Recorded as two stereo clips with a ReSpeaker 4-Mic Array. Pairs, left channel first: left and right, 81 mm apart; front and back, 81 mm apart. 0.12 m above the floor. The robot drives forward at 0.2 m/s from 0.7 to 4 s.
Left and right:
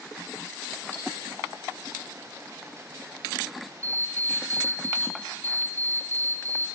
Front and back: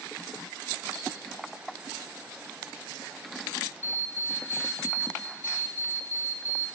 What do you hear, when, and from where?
0.9 s cutlery clinking: 35° left, 1.7 m
3.8 s an alarm clock: 40° left, 0.9 m; by 6.7 s 45° left, 0.9 m